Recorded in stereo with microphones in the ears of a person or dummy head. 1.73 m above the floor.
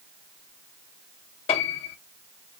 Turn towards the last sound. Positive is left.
turn(degrees=35)  # may be behind; listen again after turning